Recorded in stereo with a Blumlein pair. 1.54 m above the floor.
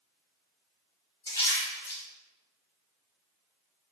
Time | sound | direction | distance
1.3 | a splash | 70° left | 1.6 m